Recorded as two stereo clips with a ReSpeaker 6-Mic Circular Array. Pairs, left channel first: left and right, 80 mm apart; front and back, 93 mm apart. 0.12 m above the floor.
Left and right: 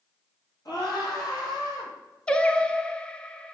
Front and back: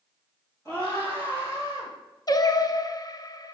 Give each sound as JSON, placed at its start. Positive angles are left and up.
{"t": 0.7, "sound": "a scream", "azimuth_deg": 55, "distance_m": 3.0}
{"t": 2.3, "sound": "singing", "azimuth_deg": 15, "distance_m": 0.5}